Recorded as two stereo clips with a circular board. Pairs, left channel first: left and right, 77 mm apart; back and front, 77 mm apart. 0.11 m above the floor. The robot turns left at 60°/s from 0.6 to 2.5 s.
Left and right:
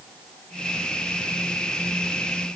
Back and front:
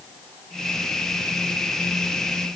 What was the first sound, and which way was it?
Only background noise.